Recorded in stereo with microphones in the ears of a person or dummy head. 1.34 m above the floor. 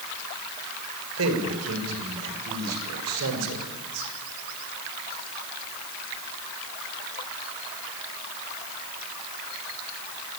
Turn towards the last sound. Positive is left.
turn(degrees=-80)